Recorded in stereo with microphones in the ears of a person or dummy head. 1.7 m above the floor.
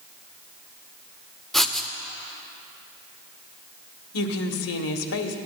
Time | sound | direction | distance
1.5 | writing | centre (ahead or behind) | 0.7 m
4.1 | a woman speaking | 75° left (ahead or behind) | 1.2 m